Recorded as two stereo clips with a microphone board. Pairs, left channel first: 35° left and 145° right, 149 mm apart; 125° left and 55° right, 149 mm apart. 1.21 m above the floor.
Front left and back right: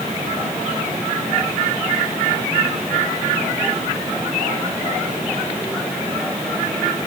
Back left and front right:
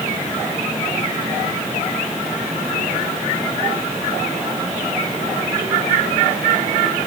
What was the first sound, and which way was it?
Only background noise.